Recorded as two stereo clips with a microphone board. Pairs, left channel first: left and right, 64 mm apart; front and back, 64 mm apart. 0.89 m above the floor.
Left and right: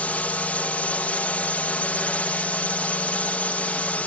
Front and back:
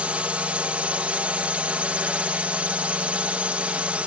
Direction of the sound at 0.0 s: 130° left.